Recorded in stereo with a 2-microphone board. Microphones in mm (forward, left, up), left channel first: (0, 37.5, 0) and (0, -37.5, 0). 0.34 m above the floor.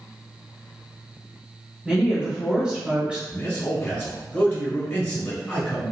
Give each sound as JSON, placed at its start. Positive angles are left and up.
{"t": 1.9, "sound": "a woman speaking", "side_deg": -15, "distance_m": 1.0}
{"t": 3.3, "sound": "a man speaking", "side_deg": 30, "distance_m": 1.2}